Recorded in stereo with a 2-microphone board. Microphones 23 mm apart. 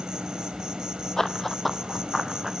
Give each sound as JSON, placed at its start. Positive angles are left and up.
{"t": 0.0, "sound": "an insect", "side_deg": -35, "distance_m": 1.2}
{"t": 1.2, "sound": "running footsteps", "side_deg": 20, "distance_m": 0.6}